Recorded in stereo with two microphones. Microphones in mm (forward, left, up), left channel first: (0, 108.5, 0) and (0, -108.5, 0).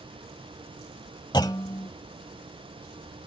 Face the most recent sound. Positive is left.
turn(degrees=20)  # may be behind; listen again after turning